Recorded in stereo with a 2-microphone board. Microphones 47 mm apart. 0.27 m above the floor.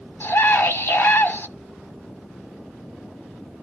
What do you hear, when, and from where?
0.2 s a scream: 50° left (ahead or behind), 2 m